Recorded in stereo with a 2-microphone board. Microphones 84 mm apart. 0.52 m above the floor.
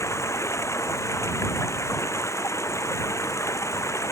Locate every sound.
0.0 s running water: 35° left (ahead or behind)